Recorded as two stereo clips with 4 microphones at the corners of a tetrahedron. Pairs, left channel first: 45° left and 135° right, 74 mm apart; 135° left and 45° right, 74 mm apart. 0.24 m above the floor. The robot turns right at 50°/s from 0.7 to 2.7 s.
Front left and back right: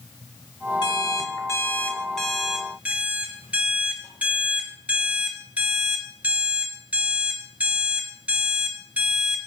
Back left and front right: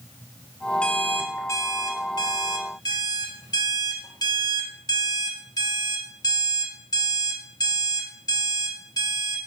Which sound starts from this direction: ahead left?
An alarm clock, at 0.8 s.